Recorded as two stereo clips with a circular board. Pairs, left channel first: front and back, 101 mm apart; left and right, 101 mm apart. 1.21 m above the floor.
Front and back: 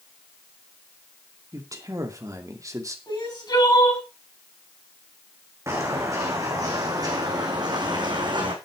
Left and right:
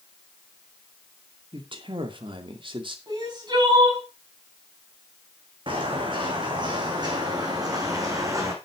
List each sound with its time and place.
1.5 s a man speaking: 125° right, 2.5 m
3.1 s crying: 45° right, 7.5 m
5.7 s footsteps: 120° right, 4 m; by 8.5 s 145° right, 3.5 m